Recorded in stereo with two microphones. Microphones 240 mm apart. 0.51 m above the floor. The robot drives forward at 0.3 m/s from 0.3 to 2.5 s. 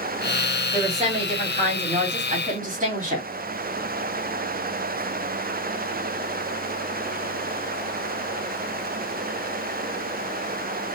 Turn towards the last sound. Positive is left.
turn(degrees=-30)  # may be behind; listen again after turning